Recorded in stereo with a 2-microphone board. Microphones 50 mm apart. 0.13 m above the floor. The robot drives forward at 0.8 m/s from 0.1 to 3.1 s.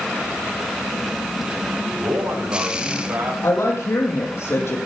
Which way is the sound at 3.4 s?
65° left (ahead or behind).